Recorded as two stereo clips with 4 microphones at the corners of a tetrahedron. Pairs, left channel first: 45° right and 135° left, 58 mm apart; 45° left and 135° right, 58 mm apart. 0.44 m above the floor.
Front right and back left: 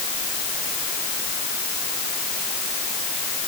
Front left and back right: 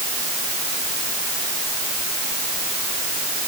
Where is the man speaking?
I don't hear a man speaking.